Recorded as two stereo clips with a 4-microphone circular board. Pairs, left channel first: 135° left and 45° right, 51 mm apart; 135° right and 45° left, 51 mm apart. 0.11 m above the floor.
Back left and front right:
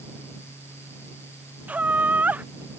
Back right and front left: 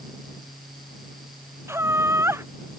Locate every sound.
1.7 s laughter: 15° left